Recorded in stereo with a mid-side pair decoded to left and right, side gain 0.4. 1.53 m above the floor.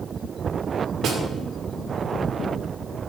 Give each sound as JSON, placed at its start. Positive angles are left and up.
{"t": 1.0, "sound": "a snare drum", "azimuth_deg": -65, "distance_m": 2.0}